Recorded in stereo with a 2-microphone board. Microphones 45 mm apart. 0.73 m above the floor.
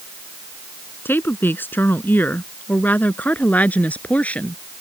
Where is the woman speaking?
60° left (ahead or behind); by 4.6 s 30° left (ahead or behind).